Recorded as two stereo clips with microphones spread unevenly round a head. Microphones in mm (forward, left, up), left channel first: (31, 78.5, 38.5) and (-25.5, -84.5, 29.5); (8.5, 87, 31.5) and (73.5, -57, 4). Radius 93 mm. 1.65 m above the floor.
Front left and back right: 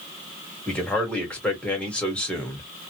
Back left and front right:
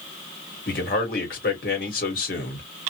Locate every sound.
0.7 s a man speaking: 155° left, 1.1 m